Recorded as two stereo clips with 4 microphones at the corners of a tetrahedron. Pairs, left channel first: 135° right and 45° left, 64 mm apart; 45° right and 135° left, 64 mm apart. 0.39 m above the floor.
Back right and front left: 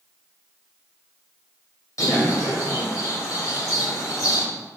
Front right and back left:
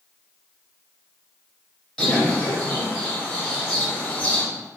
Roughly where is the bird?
Behind right.